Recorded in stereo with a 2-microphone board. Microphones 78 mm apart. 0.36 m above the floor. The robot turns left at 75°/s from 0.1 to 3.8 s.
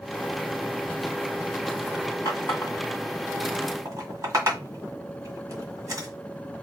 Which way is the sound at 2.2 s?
60° left (ahead or behind).